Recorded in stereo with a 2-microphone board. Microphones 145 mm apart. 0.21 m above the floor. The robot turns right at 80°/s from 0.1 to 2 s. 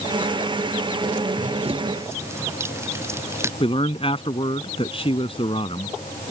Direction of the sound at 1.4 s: 70° right (ahead or behind).